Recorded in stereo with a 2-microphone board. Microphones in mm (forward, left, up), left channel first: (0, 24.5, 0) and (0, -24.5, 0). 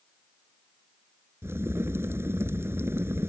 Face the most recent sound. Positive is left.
turn(degrees=-55)  # may be behind; listen again after turning